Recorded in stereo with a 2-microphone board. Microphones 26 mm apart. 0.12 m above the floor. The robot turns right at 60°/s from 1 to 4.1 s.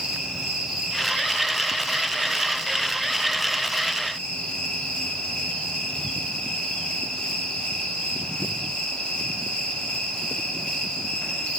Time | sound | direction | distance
0.0 | an insect | 155° right | 5.5 m